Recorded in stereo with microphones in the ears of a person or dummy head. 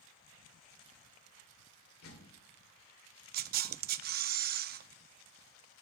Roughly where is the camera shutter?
Right.